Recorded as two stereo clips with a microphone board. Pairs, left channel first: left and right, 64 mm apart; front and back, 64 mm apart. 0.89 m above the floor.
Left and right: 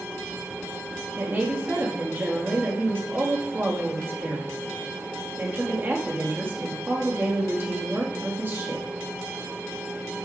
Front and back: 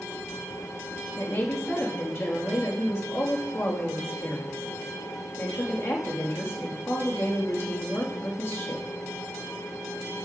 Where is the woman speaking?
40° right, 1.6 m.